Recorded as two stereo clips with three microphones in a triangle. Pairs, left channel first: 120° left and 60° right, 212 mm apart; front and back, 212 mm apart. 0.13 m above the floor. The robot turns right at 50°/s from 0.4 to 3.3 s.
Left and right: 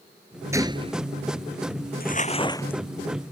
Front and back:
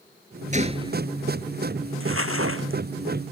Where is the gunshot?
135° right; by 1.0 s 110° right.